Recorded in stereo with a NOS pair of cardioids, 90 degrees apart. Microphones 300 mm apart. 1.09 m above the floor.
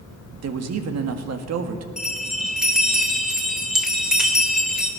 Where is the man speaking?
60° right, 1.8 m.